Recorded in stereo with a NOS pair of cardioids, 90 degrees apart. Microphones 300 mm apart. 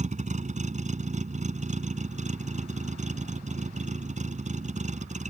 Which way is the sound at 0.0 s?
25° right.